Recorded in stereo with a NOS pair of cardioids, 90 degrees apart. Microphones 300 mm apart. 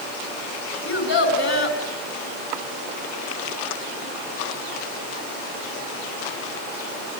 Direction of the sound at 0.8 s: 40° left.